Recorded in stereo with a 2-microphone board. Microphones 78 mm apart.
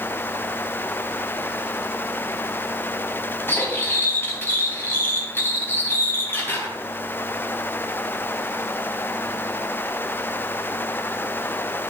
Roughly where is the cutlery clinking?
Left.